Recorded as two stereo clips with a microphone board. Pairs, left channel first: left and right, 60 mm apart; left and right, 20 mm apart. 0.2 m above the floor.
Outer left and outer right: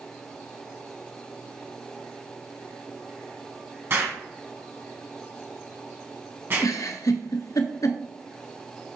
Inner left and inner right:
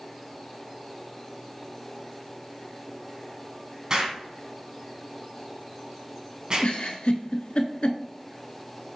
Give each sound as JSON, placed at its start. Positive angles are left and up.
{"t": 3.9, "sound": "an explosion", "side_deg": -40, "distance_m": 1.3}
{"t": 6.6, "sound": "a giggle", "side_deg": 70, "distance_m": 0.6}